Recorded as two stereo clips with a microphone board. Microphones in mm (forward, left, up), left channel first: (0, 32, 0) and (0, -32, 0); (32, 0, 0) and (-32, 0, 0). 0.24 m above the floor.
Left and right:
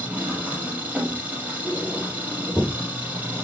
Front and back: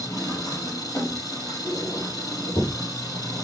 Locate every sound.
0.0 s an engine running: 20° right, 5.5 m
1.6 s a squeak: 10° right, 6 m